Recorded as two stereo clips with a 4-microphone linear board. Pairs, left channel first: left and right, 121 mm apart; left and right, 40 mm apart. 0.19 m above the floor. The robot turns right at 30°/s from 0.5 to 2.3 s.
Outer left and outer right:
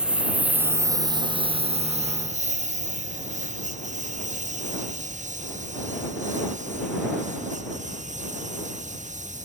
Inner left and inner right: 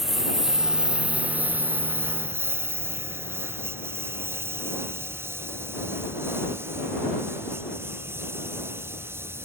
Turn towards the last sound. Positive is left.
turn(degrees=-90)